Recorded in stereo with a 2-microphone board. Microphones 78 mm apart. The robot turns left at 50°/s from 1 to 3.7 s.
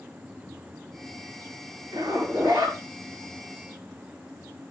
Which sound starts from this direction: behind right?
A zipper, at 1.9 s.